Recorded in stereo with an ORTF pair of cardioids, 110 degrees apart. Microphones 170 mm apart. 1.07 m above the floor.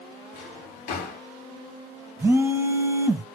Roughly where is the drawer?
Ahead left.